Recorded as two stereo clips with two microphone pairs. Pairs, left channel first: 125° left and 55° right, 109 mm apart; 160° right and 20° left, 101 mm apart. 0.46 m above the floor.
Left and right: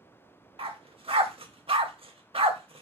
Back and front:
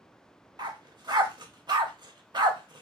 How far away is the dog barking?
About 0.7 m.